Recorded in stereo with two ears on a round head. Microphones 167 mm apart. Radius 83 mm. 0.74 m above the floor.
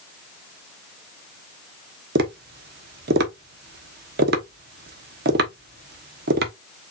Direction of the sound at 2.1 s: 60° right (ahead or behind).